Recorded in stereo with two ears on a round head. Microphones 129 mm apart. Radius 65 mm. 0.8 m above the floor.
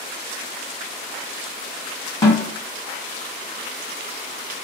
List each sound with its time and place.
2.2 s a snare drum: 25° left (ahead or behind), 1.5 m